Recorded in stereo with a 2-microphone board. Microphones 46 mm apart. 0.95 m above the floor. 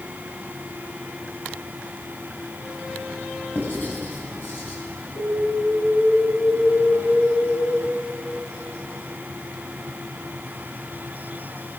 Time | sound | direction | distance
3.5 | writing | 50° left (ahead or behind) | 7.5 m
5.2 | an alarm | 85° left | 10 m